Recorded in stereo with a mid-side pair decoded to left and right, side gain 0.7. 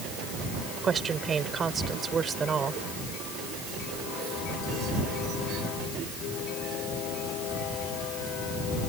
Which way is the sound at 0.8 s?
25° right.